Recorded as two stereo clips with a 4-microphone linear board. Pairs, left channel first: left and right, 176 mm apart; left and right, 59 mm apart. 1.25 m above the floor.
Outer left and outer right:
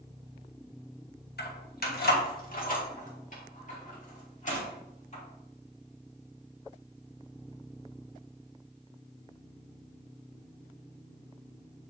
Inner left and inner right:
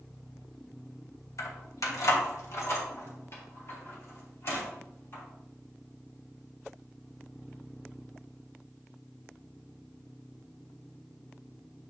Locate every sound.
1.4 s keys jangling: 70° left (ahead or behind), 1.0 m; by 5.2 s 45° left (ahead or behind), 3 m